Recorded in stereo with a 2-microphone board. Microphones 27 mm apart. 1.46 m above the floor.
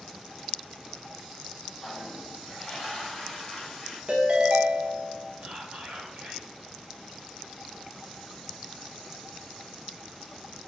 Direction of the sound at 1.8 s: 35° left (ahead or behind).